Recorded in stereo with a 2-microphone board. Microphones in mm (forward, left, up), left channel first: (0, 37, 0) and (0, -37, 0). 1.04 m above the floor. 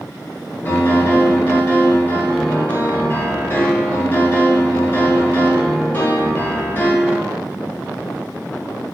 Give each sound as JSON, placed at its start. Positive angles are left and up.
{"t": 0.7, "sound": "a piano", "side_deg": 25, "distance_m": 1.0}